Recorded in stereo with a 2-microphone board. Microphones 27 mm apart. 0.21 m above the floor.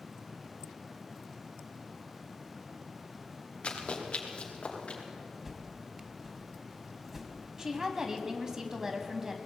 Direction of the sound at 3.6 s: 45° left (ahead or behind).